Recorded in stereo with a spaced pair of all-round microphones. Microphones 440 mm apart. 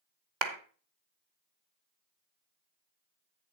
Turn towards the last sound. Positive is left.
turn(degrees=-75)  # may be behind; listen again after turning